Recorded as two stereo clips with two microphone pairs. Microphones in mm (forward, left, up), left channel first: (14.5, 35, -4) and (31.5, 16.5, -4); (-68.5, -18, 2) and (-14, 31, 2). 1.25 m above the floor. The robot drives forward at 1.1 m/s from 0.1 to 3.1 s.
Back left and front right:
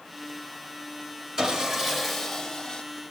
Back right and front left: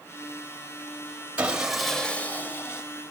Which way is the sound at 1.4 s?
15° right.